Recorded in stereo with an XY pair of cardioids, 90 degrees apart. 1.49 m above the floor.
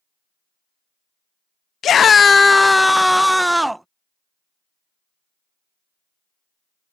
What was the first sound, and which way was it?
A scream, 65° left.